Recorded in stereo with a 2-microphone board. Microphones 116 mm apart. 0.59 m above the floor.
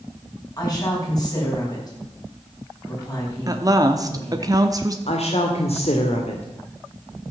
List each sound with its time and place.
0.6 s a woman speaking: 35° left (ahead or behind), 5 m
3.5 s a woman speaking: 30° right (ahead or behind), 1.0 m
5.1 s a woman speaking: 60° left (ahead or behind), 1.7 m